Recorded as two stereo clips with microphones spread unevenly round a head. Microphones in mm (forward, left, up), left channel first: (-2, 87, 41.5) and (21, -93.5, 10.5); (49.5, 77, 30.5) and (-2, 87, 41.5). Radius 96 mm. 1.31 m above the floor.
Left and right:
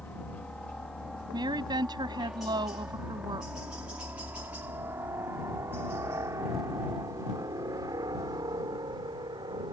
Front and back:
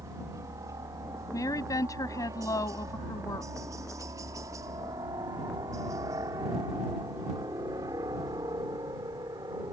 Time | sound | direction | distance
0.0 | a helicopter | straight behind | ?
1.3 | a woman speaking | 15° right | ?